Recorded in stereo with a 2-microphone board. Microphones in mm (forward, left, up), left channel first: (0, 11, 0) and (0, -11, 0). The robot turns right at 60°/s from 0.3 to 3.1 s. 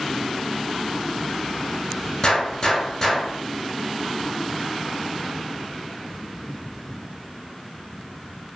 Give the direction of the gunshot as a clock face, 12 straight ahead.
8 o'clock.